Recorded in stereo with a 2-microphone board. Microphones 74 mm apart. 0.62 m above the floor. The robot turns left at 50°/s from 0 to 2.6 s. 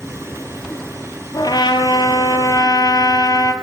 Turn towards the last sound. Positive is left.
turn(degrees=60)